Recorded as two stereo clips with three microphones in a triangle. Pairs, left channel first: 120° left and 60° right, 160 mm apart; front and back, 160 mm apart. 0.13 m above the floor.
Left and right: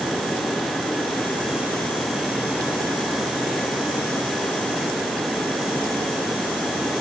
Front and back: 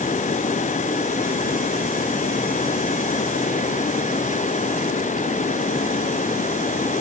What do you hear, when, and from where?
Only background noise.